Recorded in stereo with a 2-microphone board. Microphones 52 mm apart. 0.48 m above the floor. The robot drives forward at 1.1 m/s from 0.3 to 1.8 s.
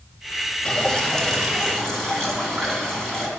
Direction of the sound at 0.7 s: 20° left (ahead or behind).